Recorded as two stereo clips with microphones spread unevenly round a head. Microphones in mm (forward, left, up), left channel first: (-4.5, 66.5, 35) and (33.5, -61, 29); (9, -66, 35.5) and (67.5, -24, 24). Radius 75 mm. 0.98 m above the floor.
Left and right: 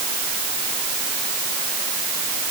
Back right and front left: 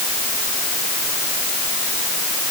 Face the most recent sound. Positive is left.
No sound to turn to.